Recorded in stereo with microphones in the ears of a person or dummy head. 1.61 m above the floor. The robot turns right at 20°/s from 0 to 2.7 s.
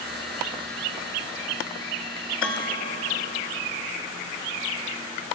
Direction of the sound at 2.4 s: 5° left (ahead or behind).